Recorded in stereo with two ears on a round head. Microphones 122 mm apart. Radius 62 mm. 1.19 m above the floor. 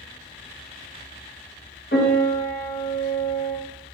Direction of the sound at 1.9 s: 80° left.